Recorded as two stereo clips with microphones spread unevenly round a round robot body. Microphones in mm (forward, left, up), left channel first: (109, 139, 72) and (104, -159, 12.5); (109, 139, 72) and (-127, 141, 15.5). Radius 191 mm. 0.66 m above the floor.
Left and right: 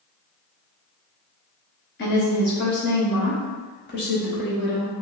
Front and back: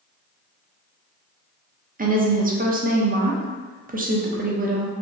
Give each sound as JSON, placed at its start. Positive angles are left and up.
{"t": 2.0, "sound": "a woman speaking", "azimuth_deg": 150, "distance_m": 0.9}